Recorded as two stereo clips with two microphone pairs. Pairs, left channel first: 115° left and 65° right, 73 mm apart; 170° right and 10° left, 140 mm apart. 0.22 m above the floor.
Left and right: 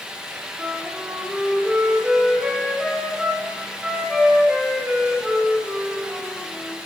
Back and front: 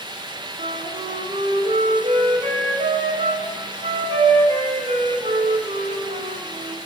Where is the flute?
15° left, 0.9 m.